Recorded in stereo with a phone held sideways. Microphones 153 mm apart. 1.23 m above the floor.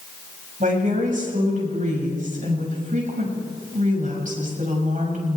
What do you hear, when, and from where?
0.6 s a woman speaking: 55° right (ahead or behind), 7 m